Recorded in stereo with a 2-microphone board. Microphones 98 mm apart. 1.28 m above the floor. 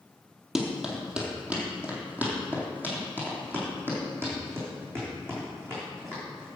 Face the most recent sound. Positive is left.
turn(degrees=-30)  # may be behind; listen again after turning